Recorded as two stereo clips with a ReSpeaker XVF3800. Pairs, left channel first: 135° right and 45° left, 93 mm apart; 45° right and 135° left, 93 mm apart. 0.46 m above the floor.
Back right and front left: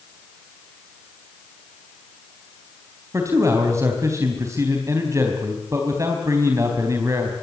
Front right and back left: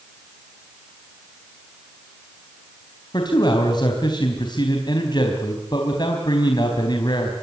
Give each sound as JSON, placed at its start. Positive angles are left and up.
{"t": 3.1, "sound": "a man speaking", "azimuth_deg": -10, "distance_m": 4.0}